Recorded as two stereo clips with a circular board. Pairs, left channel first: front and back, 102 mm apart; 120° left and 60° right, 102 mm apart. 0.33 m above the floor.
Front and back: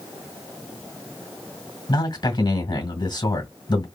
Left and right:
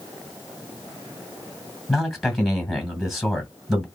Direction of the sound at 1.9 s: 30° left.